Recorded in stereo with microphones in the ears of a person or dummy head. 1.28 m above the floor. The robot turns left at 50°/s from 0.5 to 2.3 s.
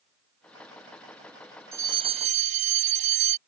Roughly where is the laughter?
No laughter in this recording.